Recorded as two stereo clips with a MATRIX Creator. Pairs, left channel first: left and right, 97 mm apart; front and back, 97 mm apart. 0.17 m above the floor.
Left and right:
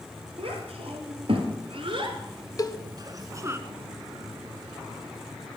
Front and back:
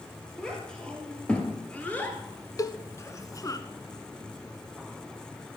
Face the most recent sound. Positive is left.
turn(degrees=45)